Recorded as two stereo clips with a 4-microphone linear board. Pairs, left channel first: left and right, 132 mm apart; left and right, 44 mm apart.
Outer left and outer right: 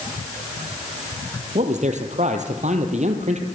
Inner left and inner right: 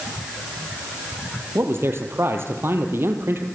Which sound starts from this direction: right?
A man speaking, at 1.6 s.